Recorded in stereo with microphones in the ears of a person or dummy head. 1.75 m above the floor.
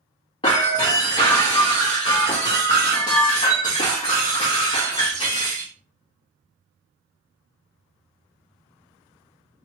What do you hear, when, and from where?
0.4 s breaking glass: 25° left (ahead or behind), 1.2 m